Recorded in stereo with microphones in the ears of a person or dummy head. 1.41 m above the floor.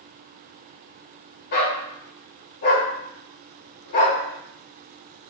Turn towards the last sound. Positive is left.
turn(degrees=45)  # may be behind; listen again after turning